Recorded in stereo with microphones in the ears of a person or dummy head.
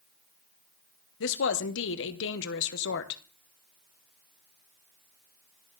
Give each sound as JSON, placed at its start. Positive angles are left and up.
{"t": 1.2, "sound": "a woman speaking", "side_deg": 70, "distance_m": 1.0}